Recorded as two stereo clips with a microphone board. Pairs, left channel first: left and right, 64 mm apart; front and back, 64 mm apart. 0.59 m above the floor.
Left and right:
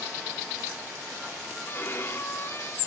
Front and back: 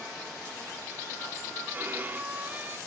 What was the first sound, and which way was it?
A violin, 130° left.